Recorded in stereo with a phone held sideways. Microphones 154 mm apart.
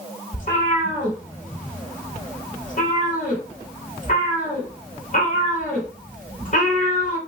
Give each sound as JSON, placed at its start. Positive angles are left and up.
{"t": 0.3, "sound": "a cat meowing", "side_deg": 55, "distance_m": 1.8}